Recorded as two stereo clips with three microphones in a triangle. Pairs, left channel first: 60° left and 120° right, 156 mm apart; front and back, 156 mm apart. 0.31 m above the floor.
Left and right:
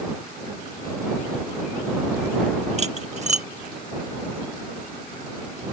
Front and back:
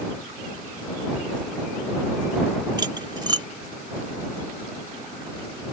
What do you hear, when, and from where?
2.8 s cutlery clinking: 130° right